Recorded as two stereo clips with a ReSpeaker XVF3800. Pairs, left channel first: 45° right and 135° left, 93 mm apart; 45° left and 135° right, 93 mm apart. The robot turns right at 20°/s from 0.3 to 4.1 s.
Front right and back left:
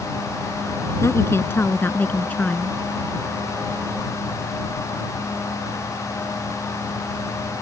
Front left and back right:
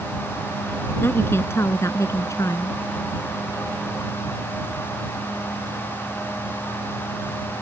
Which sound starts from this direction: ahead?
A woman speaking, at 1.0 s.